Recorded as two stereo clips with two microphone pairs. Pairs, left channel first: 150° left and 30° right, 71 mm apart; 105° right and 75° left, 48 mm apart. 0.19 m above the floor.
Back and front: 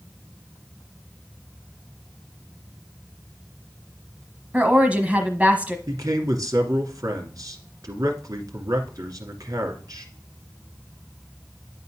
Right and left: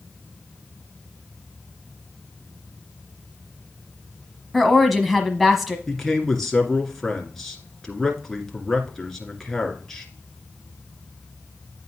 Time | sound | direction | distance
4.5 | a woman speaking | 10° right | 1.2 m
5.9 | a man speaking | 20° right | 2 m